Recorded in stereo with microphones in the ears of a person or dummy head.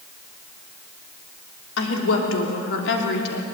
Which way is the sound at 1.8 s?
80° left.